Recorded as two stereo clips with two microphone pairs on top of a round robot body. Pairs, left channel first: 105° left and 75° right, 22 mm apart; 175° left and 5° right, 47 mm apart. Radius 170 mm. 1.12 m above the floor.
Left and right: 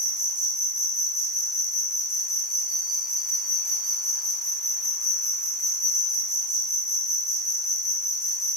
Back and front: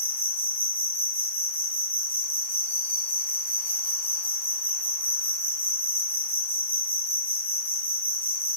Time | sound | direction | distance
0.0 | an insect | 140° right | 1.2 m